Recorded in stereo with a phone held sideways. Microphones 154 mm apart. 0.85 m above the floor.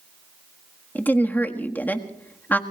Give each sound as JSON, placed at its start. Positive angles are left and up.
{"t": 0.9, "sound": "a woman speaking", "side_deg": 10, "distance_m": 1.5}